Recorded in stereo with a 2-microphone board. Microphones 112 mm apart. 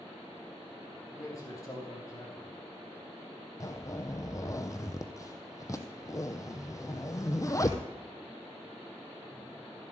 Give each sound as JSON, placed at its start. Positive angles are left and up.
{"t": 1.1, "sound": "a man speaking", "side_deg": 30, "distance_m": 3.0}
{"t": 3.6, "sound": "a zipper", "side_deg": 30, "distance_m": 0.8}